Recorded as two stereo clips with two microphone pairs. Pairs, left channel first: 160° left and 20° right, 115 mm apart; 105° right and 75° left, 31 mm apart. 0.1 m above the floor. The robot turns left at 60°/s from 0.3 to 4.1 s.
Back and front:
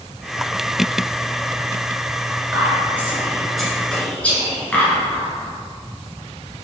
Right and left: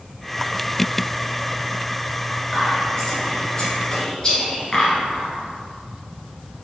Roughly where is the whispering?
Ahead right.